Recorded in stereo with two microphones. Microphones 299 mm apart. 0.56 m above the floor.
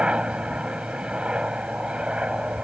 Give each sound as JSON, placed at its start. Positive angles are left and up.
{"t": 0.0, "sound": "a helicopter", "side_deg": -5}